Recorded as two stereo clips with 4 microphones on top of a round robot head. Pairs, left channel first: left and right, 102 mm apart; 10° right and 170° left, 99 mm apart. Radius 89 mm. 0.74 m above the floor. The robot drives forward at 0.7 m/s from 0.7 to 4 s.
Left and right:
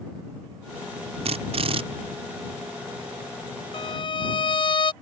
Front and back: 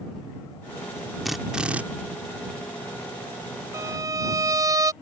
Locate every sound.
1.2 s a drill: 100° right; by 1.8 s 110° right
3.7 s a violin: 115° left; by 4.9 s 120° left